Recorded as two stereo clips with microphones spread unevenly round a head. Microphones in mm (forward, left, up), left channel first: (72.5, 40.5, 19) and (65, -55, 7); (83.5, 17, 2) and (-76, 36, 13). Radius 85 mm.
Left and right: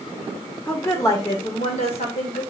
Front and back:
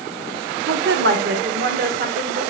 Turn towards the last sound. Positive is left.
turn(degrees=135)